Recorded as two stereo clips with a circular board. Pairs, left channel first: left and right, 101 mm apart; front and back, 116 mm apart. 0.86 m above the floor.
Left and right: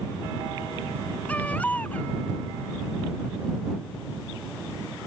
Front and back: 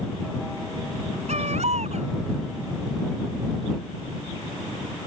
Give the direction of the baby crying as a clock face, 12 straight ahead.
6 o'clock.